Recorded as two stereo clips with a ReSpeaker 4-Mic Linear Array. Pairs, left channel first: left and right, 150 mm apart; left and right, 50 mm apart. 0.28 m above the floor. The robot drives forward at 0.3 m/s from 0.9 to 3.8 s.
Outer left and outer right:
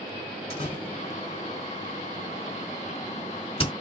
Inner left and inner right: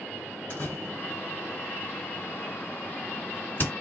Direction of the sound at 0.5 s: 50° left (ahead or behind).